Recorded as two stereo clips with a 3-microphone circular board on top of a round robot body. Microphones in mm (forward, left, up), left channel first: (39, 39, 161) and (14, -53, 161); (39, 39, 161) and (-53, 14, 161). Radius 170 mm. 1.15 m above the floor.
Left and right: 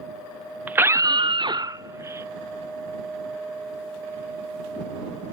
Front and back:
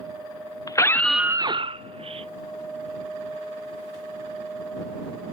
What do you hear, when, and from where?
0.7 s a scream: 35° right; by 2.3 s 170° right